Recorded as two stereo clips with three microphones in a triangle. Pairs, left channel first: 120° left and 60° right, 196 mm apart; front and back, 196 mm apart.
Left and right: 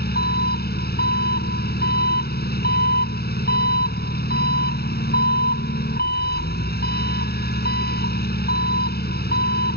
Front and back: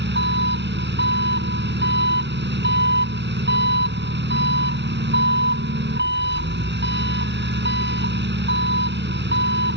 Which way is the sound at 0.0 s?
155° left.